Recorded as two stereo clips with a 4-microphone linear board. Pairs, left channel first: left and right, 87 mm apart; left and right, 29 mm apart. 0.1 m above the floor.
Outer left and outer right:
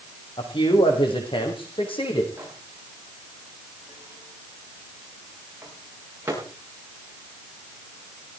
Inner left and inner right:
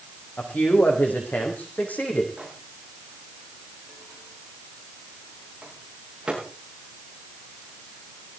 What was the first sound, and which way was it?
A man speaking, 75° left (ahead or behind).